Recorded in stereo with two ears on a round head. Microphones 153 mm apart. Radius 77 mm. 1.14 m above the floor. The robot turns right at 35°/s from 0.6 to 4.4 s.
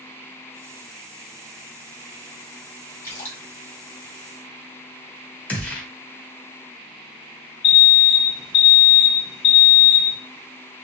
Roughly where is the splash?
Centre.